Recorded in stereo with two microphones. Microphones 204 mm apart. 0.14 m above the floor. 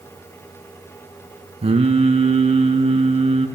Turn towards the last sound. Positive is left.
turn(degrees=-30)  # may be behind; listen again after turning